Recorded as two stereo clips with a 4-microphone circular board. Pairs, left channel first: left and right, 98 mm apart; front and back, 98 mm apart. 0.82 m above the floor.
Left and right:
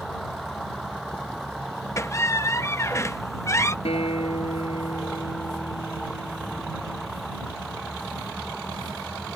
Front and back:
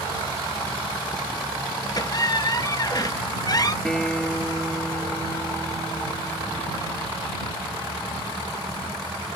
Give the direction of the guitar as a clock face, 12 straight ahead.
9 o'clock.